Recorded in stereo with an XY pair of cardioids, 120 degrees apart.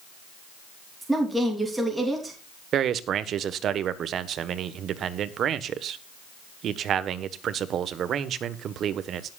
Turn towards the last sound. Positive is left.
turn(degrees=-55)